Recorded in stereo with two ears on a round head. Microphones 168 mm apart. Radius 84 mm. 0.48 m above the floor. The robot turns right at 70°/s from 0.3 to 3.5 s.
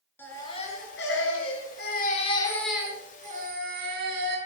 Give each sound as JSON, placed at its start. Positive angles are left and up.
{"t": 0.2, "sound": "a baby crying", "azimuth_deg": 10, "distance_m": 5.0}